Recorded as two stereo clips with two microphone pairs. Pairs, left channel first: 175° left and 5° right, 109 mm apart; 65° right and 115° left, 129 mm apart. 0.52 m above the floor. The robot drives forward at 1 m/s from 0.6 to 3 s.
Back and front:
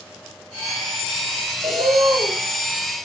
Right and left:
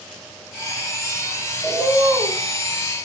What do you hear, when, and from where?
1.6 s a bird: 25° left, 5.5 m; by 2.4 s 30° left, 5 m